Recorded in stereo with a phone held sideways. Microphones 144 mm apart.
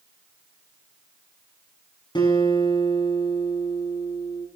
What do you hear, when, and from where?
2.1 s a guitar: 35° left (ahead or behind), 6 m